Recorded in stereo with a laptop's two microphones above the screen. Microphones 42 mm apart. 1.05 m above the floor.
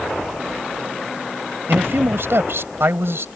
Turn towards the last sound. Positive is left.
turn(degrees=-70)  # may be behind; listen again after turning